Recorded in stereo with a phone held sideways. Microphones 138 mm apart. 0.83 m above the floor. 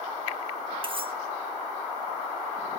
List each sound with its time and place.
0.8 s cutlery clinking: 40° right (ahead or behind), 1.0 m